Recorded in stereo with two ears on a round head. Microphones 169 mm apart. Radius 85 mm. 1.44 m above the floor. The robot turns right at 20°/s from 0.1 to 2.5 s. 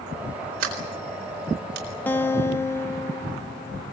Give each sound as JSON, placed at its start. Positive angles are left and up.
{"t": 0.6, "sound": "a sliding door", "side_deg": -80, "distance_m": 7.0}
{"t": 2.1, "sound": "a guitar", "side_deg": 10, "distance_m": 0.5}